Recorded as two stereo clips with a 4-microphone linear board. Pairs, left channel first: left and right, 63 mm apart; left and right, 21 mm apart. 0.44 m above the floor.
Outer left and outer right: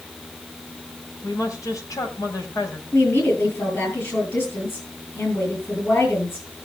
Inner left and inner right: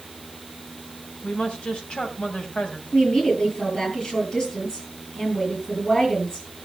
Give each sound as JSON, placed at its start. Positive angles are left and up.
{"t": 1.2, "sound": "a woman speaking", "side_deg": 65, "distance_m": 2.5}
{"t": 2.9, "sound": "a woman speaking", "side_deg": 40, "distance_m": 10.0}